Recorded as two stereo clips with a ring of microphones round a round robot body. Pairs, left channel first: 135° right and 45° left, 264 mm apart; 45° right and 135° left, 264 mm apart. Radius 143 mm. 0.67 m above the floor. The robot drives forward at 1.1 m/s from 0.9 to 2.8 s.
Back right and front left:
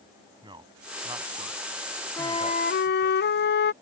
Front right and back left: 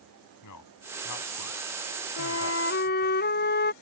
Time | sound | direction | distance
0.4 | a man speaking | 30° right | ?
2.2 | a flute | 55° right | ?